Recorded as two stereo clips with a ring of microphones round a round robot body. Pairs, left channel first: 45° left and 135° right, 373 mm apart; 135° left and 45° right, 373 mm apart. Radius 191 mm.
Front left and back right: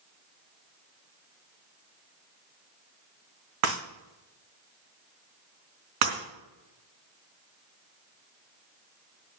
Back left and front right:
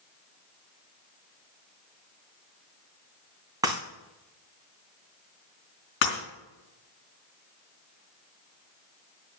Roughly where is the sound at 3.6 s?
Behind right.